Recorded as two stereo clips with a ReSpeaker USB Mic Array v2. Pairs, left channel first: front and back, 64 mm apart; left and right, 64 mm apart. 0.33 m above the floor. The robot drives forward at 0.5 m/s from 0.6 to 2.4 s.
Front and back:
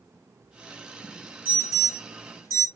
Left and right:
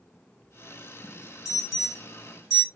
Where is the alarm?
160° right, 2 m; by 2.7 s 165° right, 2.5 m.